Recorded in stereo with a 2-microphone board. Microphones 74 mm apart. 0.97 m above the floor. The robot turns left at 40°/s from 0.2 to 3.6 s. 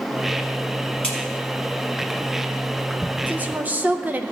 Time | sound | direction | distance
1.0 | a crack | 15° left (ahead or behind) | 3 m
3.3 | a woman speaking | 20° right (ahead or behind) | 0.6 m